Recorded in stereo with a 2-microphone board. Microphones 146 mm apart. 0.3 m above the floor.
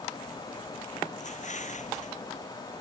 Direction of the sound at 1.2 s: 55° left (ahead or behind).